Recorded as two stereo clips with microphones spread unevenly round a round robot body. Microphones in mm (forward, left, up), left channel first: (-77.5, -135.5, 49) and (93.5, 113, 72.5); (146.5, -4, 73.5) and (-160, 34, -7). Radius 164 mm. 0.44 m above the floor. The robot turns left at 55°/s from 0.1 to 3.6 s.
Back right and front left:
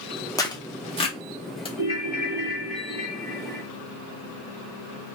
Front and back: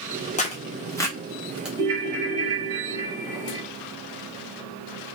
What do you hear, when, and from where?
0.4 s tearing paper: 75° right, 1.1 m; by 1.7 s 150° right, 1.1 m
1.8 s a ringtone: 165° left, 2 m; by 3.6 s 65° left, 2 m